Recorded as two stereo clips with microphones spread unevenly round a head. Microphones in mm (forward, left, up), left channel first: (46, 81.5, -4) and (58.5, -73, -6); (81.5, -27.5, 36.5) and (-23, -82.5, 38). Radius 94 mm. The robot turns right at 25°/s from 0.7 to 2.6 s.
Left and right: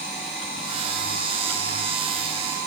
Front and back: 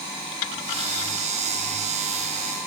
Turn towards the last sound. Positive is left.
No sound to turn to.